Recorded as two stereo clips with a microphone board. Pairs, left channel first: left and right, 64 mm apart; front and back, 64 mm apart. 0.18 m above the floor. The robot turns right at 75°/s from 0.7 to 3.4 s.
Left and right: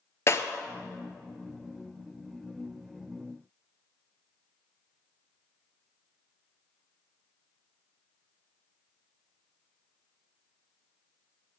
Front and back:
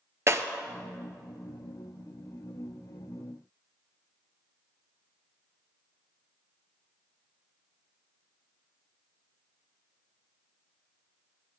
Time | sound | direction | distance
0.3 | breaking glass | 135° left | 0.6 m